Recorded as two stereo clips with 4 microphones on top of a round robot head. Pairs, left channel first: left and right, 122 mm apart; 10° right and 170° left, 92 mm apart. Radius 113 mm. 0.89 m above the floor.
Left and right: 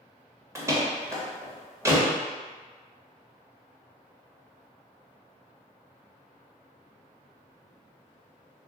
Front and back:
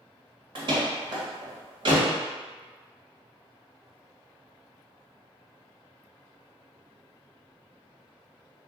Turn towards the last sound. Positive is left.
turn(degrees=-155)